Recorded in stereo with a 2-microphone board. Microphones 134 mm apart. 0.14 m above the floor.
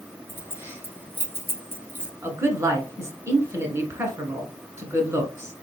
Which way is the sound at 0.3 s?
15° right (ahead or behind).